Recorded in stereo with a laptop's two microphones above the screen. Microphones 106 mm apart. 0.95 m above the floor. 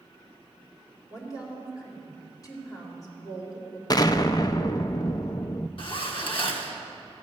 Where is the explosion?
40° left (ahead or behind), 0.5 m.